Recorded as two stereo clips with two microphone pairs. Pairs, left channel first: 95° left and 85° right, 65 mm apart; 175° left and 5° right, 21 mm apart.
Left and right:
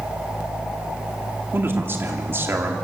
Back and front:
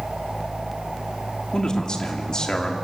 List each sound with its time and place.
1.5 s a man speaking: 135° right, 2.5 m